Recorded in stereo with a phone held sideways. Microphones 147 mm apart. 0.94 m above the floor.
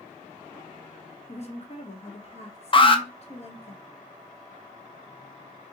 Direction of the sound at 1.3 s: 45° left (ahead or behind).